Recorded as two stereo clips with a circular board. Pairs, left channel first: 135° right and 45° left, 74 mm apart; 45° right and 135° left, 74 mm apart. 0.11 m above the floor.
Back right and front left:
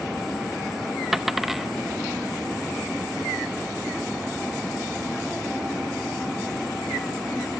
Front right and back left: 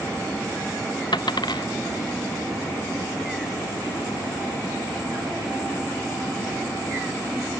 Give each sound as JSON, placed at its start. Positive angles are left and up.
{"t": 1.1, "sound": "a dropped coin", "azimuth_deg": -40}